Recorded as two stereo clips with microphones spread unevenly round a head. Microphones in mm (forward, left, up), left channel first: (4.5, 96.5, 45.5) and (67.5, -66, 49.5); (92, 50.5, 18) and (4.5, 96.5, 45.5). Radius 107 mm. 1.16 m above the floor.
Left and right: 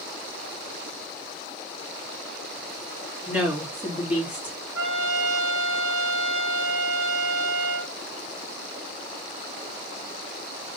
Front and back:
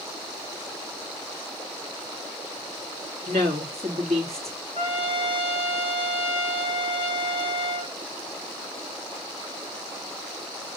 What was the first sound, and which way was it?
A woman speaking, 150° right.